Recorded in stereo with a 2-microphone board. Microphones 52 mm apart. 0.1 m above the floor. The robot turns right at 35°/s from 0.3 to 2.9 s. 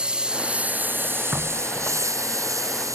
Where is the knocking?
20° right (ahead or behind); by 2.1 s 5° left (ahead or behind).